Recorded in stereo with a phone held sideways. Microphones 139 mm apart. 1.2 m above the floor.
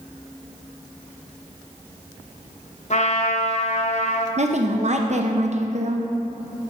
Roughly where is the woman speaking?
Right.